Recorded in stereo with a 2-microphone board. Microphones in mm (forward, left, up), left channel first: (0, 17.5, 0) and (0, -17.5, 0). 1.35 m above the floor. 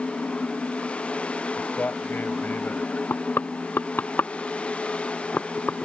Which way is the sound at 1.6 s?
60° left (ahead or behind).